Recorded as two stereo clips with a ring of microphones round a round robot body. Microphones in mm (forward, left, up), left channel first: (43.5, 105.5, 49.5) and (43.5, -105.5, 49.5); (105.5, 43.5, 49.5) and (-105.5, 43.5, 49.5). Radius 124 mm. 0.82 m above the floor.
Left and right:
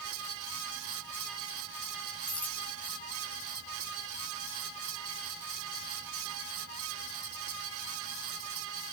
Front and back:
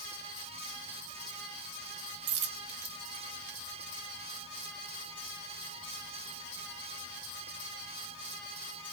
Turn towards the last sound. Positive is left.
turn(degrees=170)